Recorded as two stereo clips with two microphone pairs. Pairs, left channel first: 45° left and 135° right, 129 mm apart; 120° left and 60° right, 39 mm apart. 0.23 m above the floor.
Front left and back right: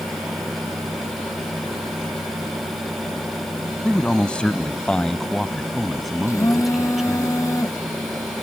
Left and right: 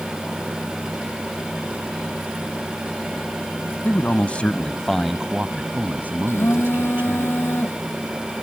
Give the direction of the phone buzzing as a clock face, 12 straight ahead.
8 o'clock.